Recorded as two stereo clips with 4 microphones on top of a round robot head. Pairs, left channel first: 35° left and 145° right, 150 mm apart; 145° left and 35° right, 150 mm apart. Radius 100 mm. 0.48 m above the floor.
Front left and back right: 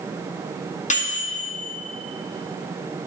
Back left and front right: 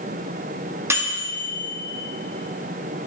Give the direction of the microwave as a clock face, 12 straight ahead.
11 o'clock.